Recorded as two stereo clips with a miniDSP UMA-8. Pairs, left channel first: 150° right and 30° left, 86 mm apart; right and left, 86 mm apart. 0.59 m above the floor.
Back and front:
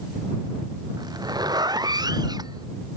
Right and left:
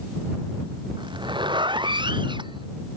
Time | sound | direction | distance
1.0 | a zipper | 70° left | ?